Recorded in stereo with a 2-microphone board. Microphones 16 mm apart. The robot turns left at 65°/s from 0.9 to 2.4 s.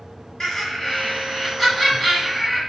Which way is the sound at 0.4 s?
25° left (ahead or behind).